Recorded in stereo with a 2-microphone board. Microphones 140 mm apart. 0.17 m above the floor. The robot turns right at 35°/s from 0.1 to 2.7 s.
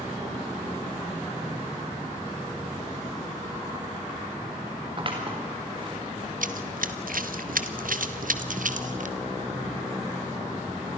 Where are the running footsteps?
75° right (ahead or behind), 1.4 m; by 9.2 s 65° right (ahead or behind), 2 m.